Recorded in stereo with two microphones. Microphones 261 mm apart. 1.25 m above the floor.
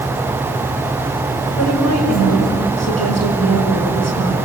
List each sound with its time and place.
1.5 s a woman speaking: 85° left, 6 m